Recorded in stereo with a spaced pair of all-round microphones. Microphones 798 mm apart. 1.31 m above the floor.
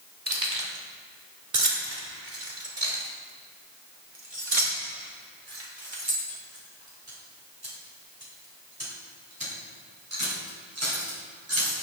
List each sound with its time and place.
0.3 s keys jangling: 70° right (ahead or behind), 3.5 m; by 11.7 s 15° right (ahead or behind), 6 m